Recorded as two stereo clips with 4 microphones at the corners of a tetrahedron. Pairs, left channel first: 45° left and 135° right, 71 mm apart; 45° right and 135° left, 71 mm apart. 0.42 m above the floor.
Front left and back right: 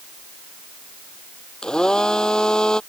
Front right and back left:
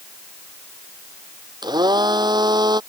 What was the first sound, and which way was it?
A blender, 125° left.